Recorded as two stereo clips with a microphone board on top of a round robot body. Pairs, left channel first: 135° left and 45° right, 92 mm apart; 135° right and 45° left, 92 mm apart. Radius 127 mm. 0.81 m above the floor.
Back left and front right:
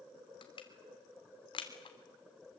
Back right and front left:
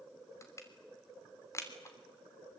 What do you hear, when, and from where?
0.4 s crushing: 165° left, 3 m